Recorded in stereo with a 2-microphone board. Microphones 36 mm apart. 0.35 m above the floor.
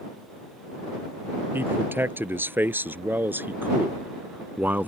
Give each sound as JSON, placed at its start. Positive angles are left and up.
{"t": 1.5, "sound": "a man speaking", "side_deg": -80}